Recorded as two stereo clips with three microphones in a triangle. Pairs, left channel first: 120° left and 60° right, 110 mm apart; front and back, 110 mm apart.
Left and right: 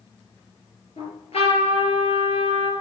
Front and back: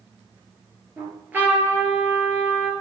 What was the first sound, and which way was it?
A trumpet, 110° left.